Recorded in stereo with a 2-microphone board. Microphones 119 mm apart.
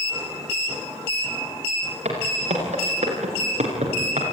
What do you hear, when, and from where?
2.0 s footsteps: 85° right, 9 m